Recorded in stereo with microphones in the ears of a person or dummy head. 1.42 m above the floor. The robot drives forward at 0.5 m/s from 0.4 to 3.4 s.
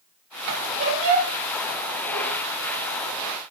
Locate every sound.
0.5 s a squeak: 70° right (ahead or behind), 3.5 m